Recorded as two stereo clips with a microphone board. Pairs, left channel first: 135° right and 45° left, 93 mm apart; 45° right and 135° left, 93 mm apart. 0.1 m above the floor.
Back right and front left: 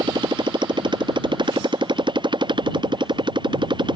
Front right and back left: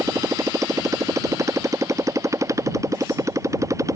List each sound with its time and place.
0.0 s a motorcycle: 80° left